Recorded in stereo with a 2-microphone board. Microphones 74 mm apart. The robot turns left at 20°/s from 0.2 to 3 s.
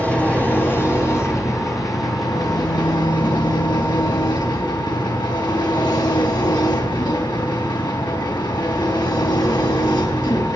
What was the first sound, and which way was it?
An engine running, 160° left.